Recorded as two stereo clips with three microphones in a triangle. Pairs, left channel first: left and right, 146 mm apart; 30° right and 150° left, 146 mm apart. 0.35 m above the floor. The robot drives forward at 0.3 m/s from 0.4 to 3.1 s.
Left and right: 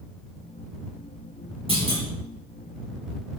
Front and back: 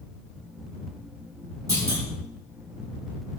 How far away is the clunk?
About 8 m.